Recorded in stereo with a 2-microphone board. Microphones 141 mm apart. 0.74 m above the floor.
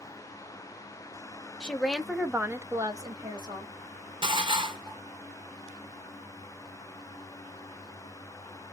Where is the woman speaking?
5° left (ahead or behind), 0.8 m; by 3.7 s 25° right (ahead or behind), 1.0 m.